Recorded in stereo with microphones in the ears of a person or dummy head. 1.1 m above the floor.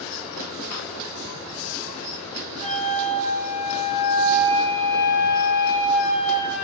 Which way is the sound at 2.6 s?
10° left (ahead or behind).